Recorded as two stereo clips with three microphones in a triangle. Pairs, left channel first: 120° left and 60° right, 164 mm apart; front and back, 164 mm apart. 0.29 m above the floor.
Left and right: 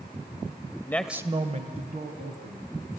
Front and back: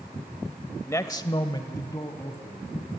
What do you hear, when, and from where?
0.9 s a man speaking: 60° left, 1.0 m; by 2.7 s 70° right, 2.5 m